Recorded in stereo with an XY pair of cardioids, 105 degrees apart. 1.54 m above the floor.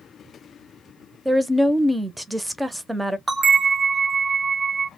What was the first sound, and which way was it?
A woman speaking, 10° right.